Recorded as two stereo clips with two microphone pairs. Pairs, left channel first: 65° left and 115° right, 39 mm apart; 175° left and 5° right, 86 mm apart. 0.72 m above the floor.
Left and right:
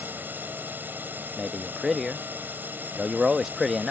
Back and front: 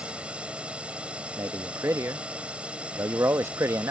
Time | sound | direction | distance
0.0 | a drone | 85° right | ?
1.4 | a man speaking | 25° right | ?